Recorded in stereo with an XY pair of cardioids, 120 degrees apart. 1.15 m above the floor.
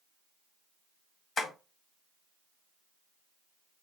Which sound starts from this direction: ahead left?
Tapping, at 1.4 s.